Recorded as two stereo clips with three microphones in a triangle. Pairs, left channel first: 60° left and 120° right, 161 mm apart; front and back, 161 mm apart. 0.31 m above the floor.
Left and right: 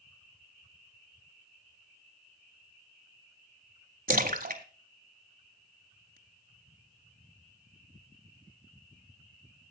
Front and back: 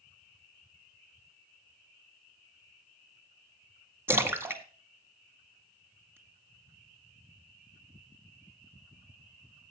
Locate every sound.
4.1 s a splash: 105° right, 1.3 m